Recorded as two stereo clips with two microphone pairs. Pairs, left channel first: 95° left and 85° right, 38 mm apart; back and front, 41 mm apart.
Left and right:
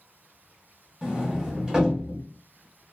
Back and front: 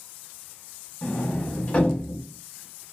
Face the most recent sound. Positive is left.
turn(degrees=-140)